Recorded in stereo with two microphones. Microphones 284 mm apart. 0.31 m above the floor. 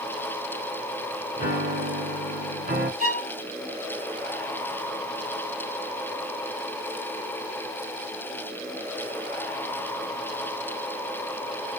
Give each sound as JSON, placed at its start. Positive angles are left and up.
{"t": 1.4, "sound": "a piano", "side_deg": -35, "distance_m": 1.9}
{"t": 3.0, "sound": "a violin", "side_deg": -35, "distance_m": 2.5}